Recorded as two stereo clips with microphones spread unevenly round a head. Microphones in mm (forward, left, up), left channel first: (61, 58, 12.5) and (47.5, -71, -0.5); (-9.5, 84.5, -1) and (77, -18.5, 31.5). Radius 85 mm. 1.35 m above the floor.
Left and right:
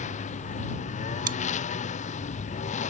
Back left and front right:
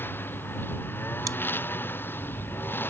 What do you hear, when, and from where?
0.0 s a lawn mower: 55° left
1.3 s chewing: 110° right